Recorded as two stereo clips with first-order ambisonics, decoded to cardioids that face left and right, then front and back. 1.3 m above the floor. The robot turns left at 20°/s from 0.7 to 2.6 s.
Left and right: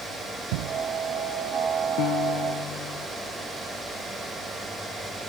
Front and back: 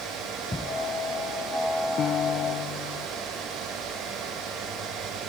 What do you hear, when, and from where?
0.5 s a thud: 80° right
2.0 s a piano: 55° left; by 3.1 s 45° left